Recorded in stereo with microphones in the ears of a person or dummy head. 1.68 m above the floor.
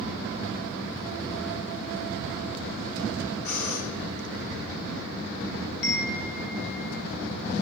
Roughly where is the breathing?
Left.